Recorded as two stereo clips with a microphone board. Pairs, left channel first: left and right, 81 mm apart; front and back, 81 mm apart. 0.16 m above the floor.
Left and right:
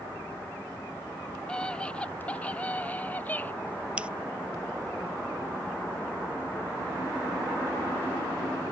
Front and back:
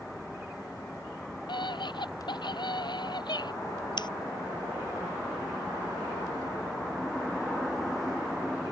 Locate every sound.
1.5 s a scream: 10° left; by 3.5 s 20° left
4.0 s scissors: 15° right